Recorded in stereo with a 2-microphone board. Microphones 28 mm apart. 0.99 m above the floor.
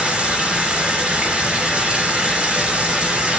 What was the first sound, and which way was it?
Running water, 40° right (ahead or behind).